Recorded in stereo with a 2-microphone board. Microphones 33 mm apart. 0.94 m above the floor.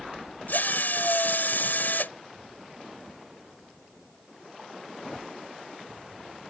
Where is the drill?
65° left (ahead or behind).